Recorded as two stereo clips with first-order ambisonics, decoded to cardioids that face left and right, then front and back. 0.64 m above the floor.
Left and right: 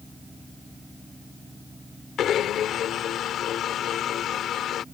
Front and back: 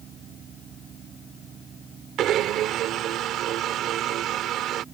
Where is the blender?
140° left.